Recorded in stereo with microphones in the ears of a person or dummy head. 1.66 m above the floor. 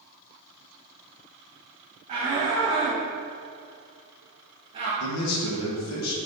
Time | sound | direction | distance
2.1 | a shout | 40° right (ahead or behind) | 2.5 m
5.0 | a man speaking | 85° left | 1.9 m